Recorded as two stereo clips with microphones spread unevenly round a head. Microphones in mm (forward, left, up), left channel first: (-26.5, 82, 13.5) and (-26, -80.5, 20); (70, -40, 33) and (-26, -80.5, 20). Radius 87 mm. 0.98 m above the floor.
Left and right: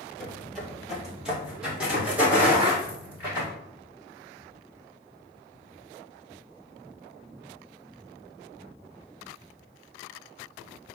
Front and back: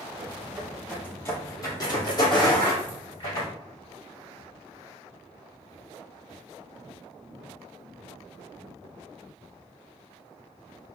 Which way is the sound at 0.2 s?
175° left.